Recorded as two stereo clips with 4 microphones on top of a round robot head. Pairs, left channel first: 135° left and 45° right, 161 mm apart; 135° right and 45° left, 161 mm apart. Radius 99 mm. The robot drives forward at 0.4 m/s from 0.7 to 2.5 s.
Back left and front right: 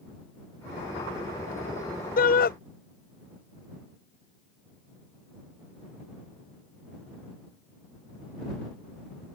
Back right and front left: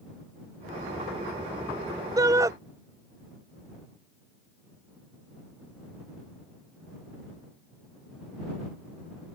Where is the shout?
115° left.